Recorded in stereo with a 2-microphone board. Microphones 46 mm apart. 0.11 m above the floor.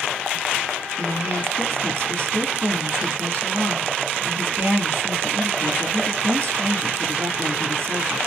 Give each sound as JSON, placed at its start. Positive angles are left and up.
{"t": 1.0, "sound": "a woman speaking", "side_deg": -55, "distance_m": 2.0}